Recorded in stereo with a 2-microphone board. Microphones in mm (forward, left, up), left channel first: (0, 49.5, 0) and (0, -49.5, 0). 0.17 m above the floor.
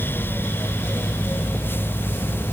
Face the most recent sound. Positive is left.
No sound to turn to.